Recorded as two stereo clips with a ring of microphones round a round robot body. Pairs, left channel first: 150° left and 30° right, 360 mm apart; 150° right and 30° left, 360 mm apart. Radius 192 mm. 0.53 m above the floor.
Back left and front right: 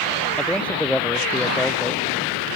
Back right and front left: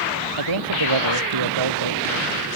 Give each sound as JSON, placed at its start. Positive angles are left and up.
{"t": 0.4, "sound": "a man speaking", "azimuth_deg": 65}